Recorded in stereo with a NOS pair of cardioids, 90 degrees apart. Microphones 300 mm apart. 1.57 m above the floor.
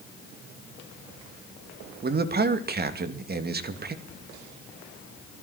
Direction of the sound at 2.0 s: 30° right.